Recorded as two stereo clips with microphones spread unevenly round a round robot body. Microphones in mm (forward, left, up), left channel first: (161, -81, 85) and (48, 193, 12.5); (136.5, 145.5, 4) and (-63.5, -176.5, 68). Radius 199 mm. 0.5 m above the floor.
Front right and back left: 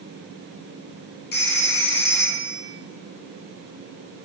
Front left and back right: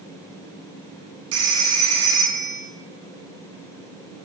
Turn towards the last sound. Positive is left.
turn(degrees=-110)